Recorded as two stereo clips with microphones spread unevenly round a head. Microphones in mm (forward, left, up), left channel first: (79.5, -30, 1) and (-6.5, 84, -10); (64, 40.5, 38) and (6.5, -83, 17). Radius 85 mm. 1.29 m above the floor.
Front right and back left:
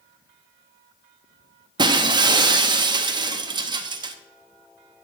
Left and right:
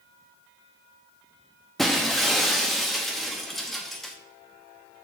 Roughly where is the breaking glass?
Behind left.